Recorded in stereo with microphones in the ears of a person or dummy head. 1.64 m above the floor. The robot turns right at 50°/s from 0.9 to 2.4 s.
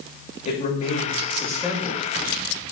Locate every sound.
0.5 s a man speaking: 140° left, 2.5 m; by 2.0 s 160° right, 2.5 m